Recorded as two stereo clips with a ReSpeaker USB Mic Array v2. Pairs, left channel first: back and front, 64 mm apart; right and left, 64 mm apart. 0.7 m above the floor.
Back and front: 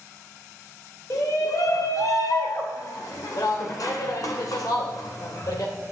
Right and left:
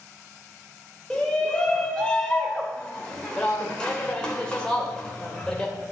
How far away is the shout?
About 2 m.